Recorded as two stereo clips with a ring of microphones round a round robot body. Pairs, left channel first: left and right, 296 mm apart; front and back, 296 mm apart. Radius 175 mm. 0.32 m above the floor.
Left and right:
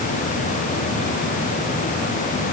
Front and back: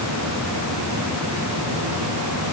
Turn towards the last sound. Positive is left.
No sound to turn to.